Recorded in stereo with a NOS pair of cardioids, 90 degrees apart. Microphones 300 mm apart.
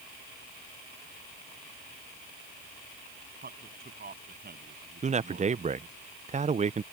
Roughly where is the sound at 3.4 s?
Ahead right.